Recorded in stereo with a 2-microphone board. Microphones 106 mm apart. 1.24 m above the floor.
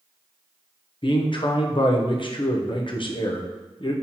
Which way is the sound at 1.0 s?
55° left (ahead or behind).